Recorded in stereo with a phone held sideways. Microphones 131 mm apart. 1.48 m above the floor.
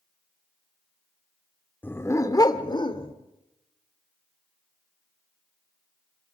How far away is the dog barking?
About 1.1 m.